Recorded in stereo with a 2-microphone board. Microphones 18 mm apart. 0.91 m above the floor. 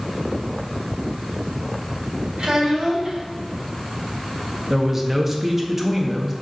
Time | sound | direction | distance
2.4 | a child speaking | 65° right (ahead or behind) | 4 m
4.7 | a man speaking | 20° right (ahead or behind) | 1.5 m